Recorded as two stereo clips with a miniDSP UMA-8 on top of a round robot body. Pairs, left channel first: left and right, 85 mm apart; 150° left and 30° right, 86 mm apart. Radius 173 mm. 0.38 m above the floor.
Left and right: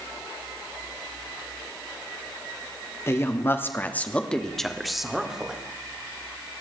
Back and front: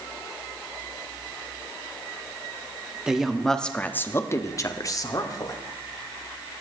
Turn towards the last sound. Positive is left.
turn(degrees=-170)